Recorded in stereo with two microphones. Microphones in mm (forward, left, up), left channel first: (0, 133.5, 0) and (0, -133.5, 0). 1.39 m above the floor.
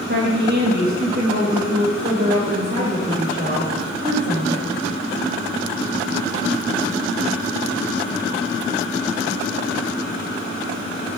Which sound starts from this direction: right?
A woman speaking, at 0.1 s.